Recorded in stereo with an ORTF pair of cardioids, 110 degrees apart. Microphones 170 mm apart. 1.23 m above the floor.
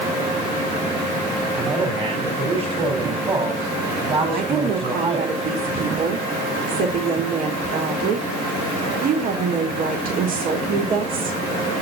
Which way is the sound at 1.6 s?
35° right.